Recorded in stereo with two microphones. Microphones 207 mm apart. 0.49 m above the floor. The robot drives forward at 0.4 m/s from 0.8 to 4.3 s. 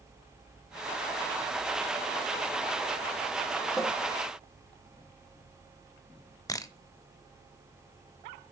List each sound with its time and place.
3.8 s a cupboard door: centre (ahead or behind), 1.4 m
6.5 s a camera shutter: 15° left (ahead or behind), 0.7 m